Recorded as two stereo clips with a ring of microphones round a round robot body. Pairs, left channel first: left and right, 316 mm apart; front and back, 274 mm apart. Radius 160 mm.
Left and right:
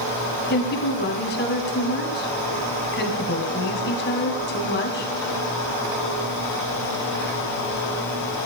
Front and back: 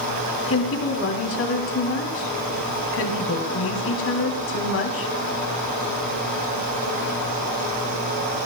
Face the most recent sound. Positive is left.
turn(degrees=35)